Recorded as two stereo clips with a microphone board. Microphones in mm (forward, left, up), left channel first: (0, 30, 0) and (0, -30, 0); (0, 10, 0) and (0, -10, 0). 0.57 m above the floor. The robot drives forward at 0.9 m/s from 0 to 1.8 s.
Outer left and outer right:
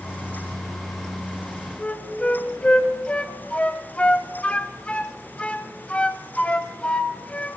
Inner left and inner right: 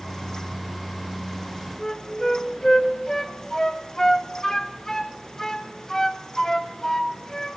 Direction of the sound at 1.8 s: 20° left (ahead or behind).